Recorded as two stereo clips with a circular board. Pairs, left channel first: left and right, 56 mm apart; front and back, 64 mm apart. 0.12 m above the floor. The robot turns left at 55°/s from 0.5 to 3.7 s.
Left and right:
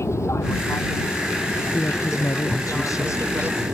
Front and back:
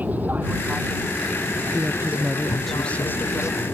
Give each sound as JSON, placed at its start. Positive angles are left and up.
{"t": 0.0, "sound": "an aircraft", "azimuth_deg": 115}
{"t": 1.7, "sound": "a woman speaking", "azimuth_deg": 135}